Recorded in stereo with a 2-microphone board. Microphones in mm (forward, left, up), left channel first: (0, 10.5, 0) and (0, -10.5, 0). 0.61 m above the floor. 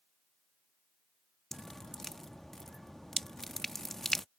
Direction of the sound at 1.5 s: 20° left (ahead or behind).